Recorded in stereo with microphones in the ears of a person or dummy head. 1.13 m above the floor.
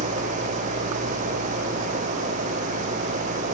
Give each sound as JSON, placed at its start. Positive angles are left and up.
{"t": 0.0, "sound": "an engine running", "side_deg": -40}